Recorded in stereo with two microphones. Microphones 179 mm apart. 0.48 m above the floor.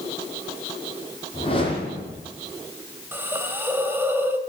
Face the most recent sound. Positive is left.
turn(degrees=-10)  # may be behind; listen again after turning